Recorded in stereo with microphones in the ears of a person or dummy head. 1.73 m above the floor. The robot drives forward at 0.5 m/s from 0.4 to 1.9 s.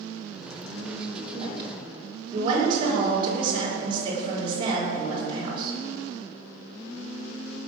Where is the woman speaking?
25° right (ahead or behind), 6 m.